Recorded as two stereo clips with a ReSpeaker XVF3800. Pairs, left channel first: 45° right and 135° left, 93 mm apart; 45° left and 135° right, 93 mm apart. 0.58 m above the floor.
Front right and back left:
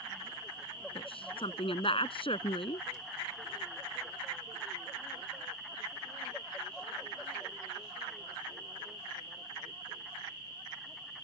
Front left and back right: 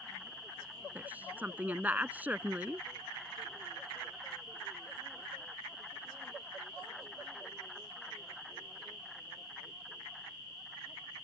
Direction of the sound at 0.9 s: 60° right.